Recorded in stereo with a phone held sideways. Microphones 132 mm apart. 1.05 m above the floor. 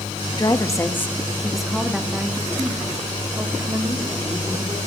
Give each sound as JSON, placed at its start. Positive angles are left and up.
{"t": 0.3, "sound": "a woman speaking", "side_deg": 30, "distance_m": 1.0}